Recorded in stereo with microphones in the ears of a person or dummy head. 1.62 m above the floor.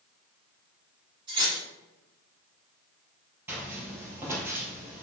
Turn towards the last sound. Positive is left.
turn(degrees=-20)  # may be behind; listen again after turning